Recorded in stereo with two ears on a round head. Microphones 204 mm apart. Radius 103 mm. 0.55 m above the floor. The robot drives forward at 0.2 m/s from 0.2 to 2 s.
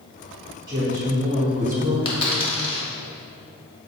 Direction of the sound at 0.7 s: 20° right (ahead or behind).